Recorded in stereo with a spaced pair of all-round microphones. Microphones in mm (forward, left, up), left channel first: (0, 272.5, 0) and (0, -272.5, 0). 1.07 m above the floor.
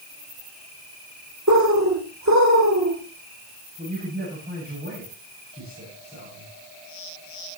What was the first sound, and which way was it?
A bird, 30° right (ahead or behind).